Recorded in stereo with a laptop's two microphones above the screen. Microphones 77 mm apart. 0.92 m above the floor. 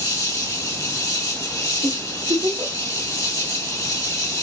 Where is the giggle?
80° right, 1.3 m.